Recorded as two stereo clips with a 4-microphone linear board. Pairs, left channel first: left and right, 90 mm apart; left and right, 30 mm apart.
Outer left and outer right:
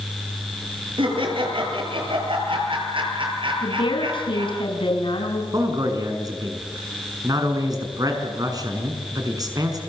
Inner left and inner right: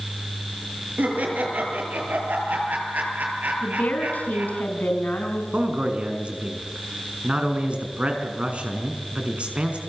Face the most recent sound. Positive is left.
turn(degrees=-45)  # may be behind; listen again after turning